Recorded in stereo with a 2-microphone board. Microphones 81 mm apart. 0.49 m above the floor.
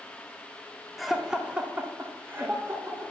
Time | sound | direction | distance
1.0 | laughter | centre (ahead or behind) | 0.7 m